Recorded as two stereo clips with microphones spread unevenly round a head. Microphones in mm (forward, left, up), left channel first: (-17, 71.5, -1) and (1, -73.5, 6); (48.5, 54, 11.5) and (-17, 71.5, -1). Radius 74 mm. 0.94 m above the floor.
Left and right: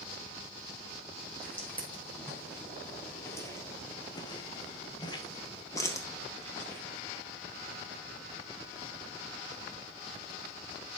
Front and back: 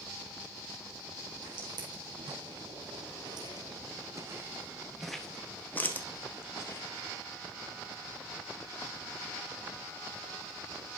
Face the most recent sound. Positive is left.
turn(degrees=20)